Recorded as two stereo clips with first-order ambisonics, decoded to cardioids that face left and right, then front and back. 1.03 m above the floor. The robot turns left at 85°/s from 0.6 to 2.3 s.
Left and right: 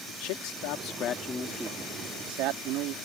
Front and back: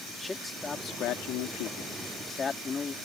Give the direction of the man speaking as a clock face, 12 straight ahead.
9 o'clock.